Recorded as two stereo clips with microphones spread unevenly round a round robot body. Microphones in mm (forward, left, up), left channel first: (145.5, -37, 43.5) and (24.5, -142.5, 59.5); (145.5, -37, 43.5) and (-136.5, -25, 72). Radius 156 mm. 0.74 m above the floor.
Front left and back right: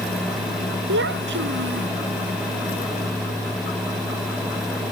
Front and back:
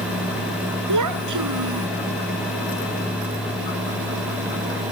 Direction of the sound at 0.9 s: 160° right.